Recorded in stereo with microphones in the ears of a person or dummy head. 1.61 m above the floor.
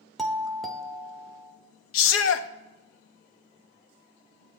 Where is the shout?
70° left (ahead or behind), 0.6 m.